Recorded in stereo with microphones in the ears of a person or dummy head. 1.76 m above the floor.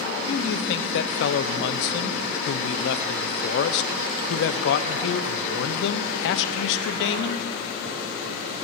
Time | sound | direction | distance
0.3 | a man speaking | 65° left (ahead or behind) | 0.8 m